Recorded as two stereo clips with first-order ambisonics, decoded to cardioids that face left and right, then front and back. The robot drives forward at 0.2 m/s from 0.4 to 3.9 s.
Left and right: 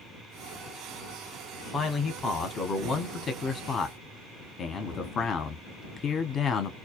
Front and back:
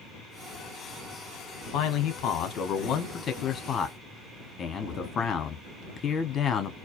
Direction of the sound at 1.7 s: 20° left.